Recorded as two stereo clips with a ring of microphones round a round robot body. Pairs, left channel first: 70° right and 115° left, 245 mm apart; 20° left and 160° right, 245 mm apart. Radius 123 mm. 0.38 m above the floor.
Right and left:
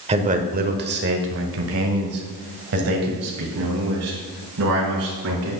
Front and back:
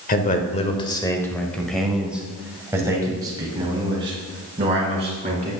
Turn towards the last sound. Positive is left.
turn(degrees=140)